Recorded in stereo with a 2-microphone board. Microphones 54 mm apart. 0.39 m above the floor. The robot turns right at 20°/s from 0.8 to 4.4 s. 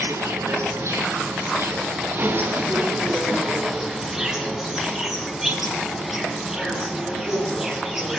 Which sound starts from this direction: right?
An insect, at 0.0 s.